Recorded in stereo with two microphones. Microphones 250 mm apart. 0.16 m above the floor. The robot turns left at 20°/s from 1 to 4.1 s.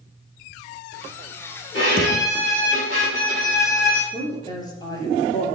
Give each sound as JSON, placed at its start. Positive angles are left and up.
{"t": 1.7, "sound": "a violin", "azimuth_deg": 50, "distance_m": 4.0}
{"t": 4.1, "sound": "a woman speaking", "side_deg": 15, "distance_m": 2.5}